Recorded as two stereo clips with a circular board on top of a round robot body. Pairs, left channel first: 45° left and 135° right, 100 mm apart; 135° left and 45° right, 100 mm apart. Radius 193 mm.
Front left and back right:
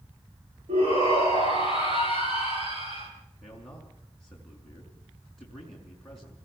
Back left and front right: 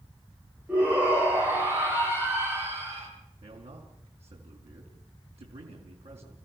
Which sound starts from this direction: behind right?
A shout, at 0.7 s.